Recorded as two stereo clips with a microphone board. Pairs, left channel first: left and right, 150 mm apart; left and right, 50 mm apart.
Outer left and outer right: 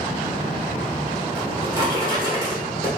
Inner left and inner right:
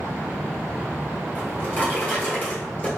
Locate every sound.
1.4 s a drawer: 35° left (ahead or behind), 1.4 m